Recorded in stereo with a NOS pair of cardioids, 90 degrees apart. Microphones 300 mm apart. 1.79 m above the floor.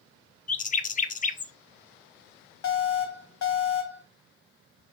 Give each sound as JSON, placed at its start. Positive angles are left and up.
{"t": 0.5, "sound": "a bird", "azimuth_deg": 25, "distance_m": 0.5}
{"t": 2.6, "sound": "an alarm", "azimuth_deg": 60, "distance_m": 1.6}